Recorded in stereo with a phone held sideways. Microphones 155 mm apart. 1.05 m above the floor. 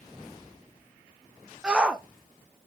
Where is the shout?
5° right (ahead or behind), 0.8 m.